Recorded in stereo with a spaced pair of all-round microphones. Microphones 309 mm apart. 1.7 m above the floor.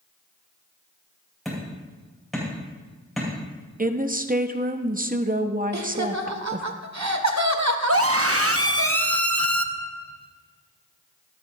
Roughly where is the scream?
Right.